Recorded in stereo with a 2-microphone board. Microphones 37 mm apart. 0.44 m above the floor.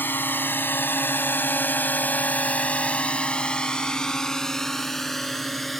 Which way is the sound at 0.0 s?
65° left (ahead or behind).